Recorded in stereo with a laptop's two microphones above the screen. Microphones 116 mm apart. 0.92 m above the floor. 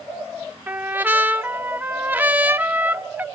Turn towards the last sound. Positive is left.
turn(degrees=-15)  # may be behind; listen again after turning